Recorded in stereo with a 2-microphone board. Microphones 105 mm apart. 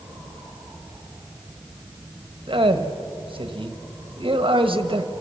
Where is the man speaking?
55° right (ahead or behind), 1.3 m.